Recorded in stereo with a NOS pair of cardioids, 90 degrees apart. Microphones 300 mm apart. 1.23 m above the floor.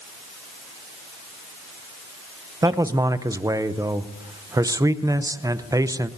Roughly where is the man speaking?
Ahead.